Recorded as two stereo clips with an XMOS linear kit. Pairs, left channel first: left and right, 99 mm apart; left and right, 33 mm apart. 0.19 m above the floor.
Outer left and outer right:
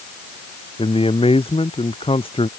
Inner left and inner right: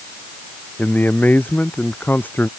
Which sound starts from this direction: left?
A man speaking, at 0.8 s.